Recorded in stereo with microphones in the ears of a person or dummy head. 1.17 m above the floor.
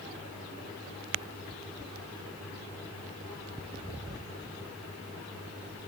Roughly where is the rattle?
I don't hear a rattle.